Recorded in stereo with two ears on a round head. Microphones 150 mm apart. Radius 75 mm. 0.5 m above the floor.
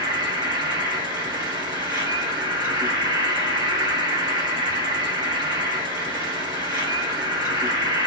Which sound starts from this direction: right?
An insect, at 0.0 s.